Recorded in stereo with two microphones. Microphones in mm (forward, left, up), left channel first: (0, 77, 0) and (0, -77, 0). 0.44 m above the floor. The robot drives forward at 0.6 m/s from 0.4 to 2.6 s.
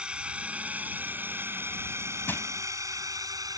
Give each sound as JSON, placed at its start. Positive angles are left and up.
{"t": 0.0, "sound": "a drone", "side_deg": -5}
{"t": 2.3, "sound": "crushing", "side_deg": 15}